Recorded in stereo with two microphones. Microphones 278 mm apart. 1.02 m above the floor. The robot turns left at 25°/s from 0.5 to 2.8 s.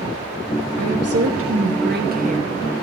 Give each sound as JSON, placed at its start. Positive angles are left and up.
{"t": 0.8, "sound": "a woman speaking", "azimuth_deg": -110, "distance_m": 1.2}